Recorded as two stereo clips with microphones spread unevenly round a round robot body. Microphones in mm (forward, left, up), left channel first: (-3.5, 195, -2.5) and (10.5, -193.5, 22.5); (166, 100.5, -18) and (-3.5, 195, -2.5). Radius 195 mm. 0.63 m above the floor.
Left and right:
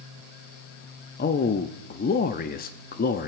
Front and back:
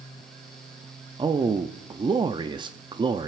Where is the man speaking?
105° left, 0.6 m.